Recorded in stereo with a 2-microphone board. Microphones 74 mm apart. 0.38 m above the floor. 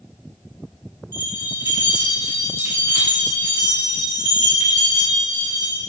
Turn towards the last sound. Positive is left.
turn(degrees=-50)  # may be behind; listen again after turning